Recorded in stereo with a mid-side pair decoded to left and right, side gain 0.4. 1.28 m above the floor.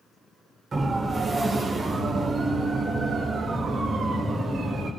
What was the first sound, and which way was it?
A siren, 40° right.